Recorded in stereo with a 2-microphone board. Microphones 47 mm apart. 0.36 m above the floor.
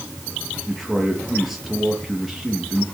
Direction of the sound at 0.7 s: 5° right (ahead or behind).